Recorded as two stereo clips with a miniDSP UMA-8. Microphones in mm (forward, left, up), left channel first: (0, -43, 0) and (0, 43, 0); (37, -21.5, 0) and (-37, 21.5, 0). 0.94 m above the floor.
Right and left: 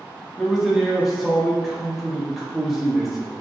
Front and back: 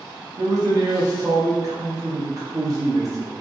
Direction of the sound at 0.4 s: 175° left.